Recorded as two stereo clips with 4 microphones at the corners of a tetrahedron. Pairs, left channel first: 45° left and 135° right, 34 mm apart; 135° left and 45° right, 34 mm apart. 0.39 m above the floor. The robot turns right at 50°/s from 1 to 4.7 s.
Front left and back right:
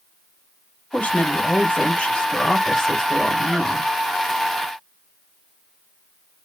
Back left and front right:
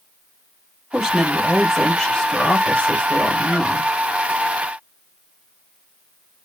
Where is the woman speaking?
20° left, 1.5 m; by 3.9 s 165° left, 1.5 m.